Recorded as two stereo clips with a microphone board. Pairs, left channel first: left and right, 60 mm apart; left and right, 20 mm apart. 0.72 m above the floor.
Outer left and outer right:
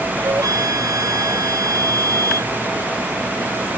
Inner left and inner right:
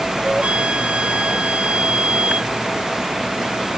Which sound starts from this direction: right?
A flute, at 0.2 s.